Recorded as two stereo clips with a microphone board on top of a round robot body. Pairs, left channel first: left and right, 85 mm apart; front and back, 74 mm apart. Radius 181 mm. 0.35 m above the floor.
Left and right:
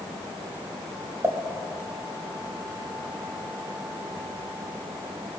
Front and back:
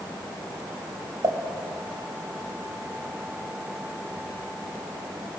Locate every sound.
1.2 s a pop: 150° right, 2 m